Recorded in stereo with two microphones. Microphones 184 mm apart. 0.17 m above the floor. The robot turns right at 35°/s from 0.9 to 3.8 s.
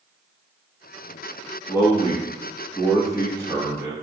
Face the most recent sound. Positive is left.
turn(degrees=-25)  # may be behind; listen again after turning